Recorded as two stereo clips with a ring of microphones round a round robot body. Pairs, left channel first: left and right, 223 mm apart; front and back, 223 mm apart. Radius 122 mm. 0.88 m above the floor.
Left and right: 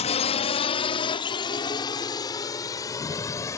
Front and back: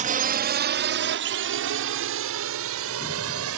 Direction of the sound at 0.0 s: 140° left.